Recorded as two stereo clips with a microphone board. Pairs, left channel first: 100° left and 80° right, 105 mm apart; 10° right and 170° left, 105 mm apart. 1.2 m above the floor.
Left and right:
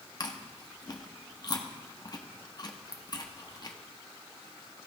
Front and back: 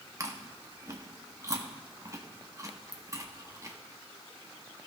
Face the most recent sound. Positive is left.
turn(degrees=130)